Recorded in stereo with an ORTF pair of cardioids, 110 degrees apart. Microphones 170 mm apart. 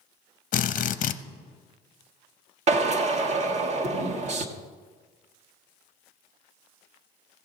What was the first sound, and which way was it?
A drill, 45° left.